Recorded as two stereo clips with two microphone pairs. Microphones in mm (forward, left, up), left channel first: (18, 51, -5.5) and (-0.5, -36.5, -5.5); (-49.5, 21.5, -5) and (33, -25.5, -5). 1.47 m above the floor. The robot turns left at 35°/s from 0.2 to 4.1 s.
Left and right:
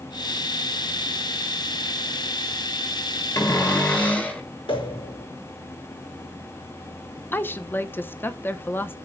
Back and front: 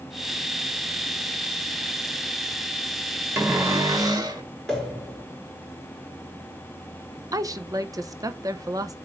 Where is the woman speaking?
15° left, 0.7 m.